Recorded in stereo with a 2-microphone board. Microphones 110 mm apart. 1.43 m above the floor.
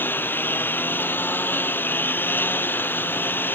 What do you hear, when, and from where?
0.0 s a lawn mower: 20° left (ahead or behind)